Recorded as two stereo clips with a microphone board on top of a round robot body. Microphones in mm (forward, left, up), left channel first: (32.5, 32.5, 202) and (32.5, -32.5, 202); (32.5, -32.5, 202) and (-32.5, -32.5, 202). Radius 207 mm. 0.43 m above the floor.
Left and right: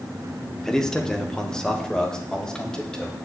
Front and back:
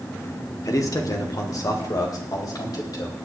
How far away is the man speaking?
About 1.9 m.